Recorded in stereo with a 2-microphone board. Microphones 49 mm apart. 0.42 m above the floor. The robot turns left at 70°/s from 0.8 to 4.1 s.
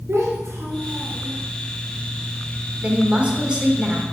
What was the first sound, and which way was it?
A child speaking, 105° right.